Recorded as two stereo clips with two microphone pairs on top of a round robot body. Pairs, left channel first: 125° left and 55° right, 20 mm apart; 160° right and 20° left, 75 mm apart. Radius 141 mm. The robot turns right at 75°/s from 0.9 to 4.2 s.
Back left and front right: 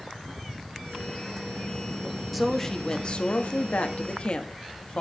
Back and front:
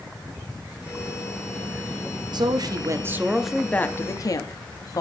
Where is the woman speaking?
20° left, 1.7 m; by 5.0 s 160° left, 1.7 m.